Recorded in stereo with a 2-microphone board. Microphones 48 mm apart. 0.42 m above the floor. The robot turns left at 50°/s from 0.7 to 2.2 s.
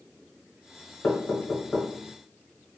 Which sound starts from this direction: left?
Knocking, at 1.0 s.